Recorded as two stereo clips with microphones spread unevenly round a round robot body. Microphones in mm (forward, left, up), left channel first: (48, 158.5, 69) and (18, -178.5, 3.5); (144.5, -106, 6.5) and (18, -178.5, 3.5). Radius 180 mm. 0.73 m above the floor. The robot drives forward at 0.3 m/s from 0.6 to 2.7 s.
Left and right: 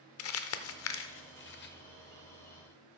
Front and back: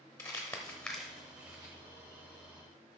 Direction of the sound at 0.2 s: 100° left.